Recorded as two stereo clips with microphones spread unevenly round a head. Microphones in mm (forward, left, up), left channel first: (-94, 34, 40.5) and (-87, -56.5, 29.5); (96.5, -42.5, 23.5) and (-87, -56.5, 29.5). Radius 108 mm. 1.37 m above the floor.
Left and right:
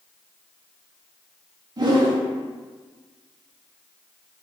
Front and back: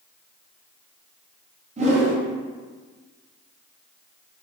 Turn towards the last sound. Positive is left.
turn(degrees=-130)